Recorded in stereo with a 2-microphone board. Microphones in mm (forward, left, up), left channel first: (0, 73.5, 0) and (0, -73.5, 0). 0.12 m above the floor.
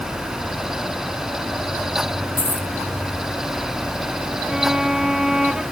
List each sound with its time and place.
2.4 s a dropped coin: 85° left
4.5 s a violin: 5° right (ahead or behind)